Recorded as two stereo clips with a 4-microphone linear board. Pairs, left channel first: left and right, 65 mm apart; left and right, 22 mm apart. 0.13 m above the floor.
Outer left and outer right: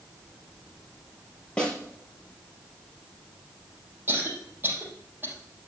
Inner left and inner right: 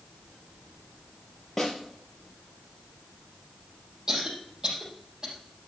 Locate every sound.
1.6 s a snare drum: 15° left (ahead or behind), 3.5 m
4.1 s a cough: 30° right (ahead or behind), 4.5 m